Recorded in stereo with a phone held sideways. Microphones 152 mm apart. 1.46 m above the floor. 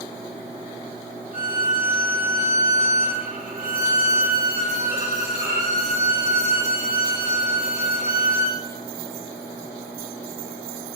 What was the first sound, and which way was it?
A violin, 60° right (ahead or behind).